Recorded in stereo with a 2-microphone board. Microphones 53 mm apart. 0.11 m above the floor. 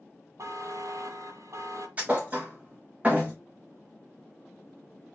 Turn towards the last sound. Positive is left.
turn(degrees=-25)  # may be behind; listen again after turning